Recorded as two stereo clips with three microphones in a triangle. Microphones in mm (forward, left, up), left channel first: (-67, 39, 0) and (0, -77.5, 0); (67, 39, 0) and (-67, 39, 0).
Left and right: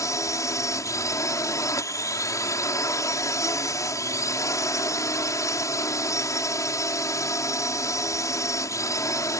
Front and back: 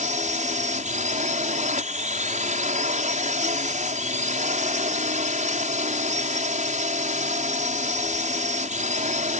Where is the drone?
175° right.